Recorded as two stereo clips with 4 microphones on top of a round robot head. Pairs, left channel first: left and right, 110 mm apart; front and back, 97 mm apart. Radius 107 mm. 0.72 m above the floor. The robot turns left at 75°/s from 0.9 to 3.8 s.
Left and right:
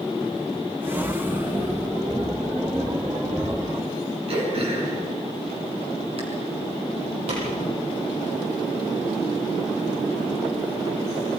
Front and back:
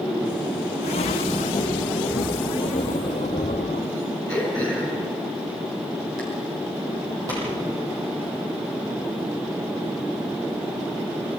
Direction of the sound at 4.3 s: 125° right.